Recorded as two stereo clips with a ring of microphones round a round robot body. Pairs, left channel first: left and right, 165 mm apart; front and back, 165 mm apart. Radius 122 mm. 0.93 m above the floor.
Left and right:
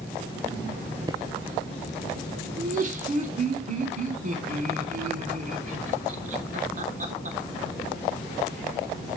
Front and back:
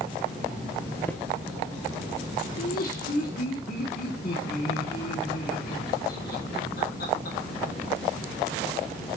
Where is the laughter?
50° right, 3 m.